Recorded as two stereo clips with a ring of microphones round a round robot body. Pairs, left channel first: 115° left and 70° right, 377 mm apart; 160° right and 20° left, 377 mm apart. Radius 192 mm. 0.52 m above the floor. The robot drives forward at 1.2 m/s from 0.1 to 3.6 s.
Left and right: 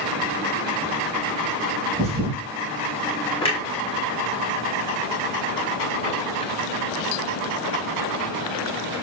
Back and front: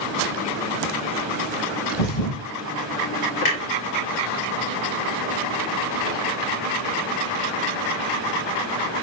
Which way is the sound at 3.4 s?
175° right.